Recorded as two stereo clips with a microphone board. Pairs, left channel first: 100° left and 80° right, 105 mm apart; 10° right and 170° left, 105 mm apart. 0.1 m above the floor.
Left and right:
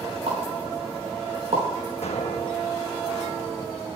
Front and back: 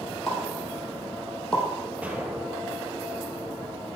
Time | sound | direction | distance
0.3 | a pop | 95° right | 4 m
2.0 | an explosion | 95° left | 1.2 m